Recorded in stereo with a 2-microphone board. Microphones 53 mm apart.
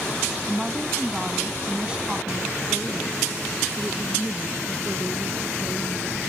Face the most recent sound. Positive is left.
turn(degrees=-50)  # may be behind; listen again after turning